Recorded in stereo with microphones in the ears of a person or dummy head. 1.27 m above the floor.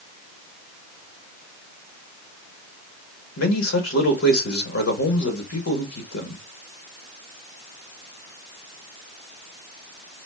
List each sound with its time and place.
3.4 s a man speaking: 75° left (ahead or behind), 1.6 m